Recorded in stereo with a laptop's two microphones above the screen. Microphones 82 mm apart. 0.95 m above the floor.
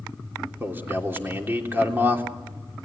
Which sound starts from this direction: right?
A man speaking, at 0.6 s.